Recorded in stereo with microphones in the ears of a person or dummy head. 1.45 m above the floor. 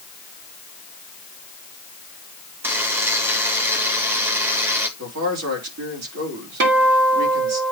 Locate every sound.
2.6 s a buzzer: 10° right (ahead or behind), 1.5 m
5.0 s a man speaking: 80° right, 3.5 m
6.6 s a guitar: 60° right (ahead or behind), 1.7 m